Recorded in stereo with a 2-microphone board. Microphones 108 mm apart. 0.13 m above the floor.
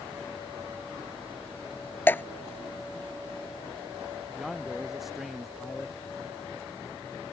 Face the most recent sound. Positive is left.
turn(degrees=0)  # may be behind; listen again after turning